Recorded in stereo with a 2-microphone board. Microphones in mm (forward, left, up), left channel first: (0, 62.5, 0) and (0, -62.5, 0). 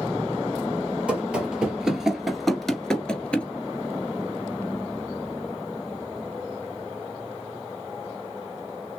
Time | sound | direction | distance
1.1 | running footsteps | 10° right (ahead or behind) | 1.9 m